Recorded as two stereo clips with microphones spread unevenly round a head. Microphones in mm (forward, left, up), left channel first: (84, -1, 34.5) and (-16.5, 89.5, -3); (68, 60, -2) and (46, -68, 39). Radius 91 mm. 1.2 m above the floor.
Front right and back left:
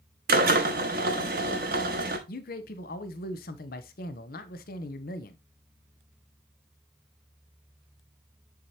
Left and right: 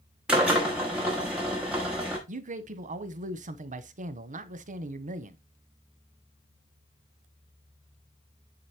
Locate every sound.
0.3 s a drill: 175° right, 0.9 m
2.3 s a man speaking: 70° right, 0.8 m